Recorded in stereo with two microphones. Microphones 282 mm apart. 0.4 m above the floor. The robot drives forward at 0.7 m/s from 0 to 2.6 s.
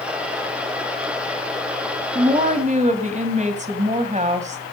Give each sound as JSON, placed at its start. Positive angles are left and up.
{"t": 2.1, "sound": "a woman speaking", "side_deg": -25, "distance_m": 2.5}